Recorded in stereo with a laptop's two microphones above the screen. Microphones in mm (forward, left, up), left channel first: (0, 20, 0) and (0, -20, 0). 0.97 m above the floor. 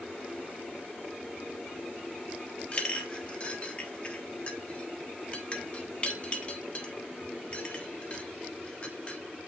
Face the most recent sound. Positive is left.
turn(degrees=30)  # may be behind; listen again after turning